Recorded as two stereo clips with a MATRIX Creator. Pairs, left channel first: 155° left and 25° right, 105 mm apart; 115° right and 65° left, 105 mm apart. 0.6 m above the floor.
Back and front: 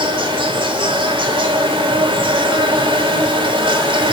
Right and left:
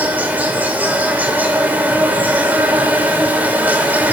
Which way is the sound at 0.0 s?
5° right.